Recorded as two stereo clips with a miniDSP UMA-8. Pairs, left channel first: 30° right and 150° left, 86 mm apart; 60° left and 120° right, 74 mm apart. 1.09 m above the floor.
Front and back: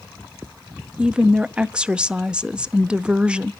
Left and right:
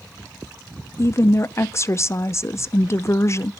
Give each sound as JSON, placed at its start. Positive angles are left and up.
{"t": 1.0, "sound": "a woman speaking", "azimuth_deg": 75, "distance_m": 0.5}